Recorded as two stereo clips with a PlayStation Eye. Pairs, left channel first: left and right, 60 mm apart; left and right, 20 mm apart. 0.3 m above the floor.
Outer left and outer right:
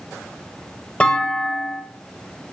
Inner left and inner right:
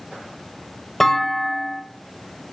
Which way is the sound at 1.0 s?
20° left (ahead or behind).